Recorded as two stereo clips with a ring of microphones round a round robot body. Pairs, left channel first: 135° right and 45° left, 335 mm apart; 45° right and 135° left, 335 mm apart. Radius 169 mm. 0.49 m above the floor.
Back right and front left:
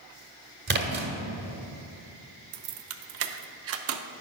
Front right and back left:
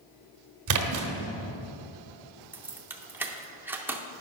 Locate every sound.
0.7 s a splash: 105° left, 1.1 m
2.5 s keys jangling: 55° left, 0.6 m